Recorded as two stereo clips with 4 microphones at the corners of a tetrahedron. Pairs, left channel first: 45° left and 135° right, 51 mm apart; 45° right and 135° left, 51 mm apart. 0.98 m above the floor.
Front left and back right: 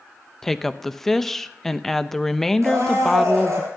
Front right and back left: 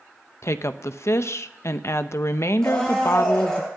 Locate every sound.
0.4 s a woman speaking: 40° right, 0.7 m
2.6 s a blender: 120° right, 7.5 m